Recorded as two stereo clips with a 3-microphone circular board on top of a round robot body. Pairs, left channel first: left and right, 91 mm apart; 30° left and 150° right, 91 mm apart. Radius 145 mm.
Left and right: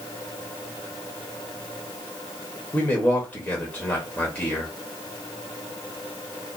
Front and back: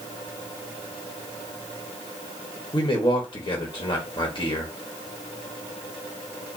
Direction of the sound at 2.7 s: 15° left.